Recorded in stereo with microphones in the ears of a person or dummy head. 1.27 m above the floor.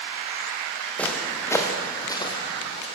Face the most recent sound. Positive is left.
turn(degrees=35)  # may be behind; listen again after turning